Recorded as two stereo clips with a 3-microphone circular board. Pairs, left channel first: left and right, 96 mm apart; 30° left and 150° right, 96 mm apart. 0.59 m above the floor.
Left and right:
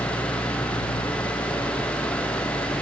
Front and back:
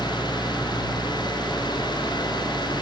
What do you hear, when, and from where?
0.0 s an engine running: 135° left